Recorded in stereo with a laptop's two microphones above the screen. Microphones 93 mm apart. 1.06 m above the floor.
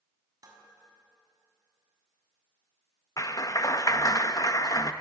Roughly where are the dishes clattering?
Right.